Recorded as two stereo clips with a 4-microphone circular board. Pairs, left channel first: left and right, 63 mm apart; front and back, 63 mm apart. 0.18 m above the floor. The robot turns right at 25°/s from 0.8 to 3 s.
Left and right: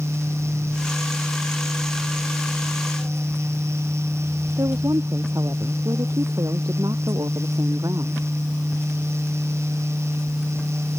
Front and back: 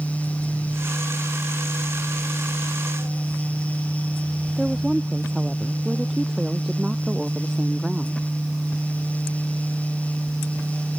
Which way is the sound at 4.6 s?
95° right.